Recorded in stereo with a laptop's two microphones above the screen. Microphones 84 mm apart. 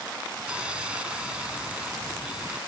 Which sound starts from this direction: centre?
Sawing, at 0.5 s.